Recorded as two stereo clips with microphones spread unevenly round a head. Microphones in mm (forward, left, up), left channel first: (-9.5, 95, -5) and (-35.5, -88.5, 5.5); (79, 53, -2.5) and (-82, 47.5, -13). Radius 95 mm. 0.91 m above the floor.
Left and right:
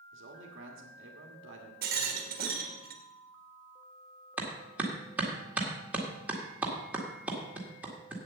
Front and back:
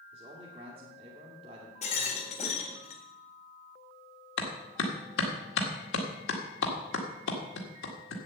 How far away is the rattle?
About 1.6 m.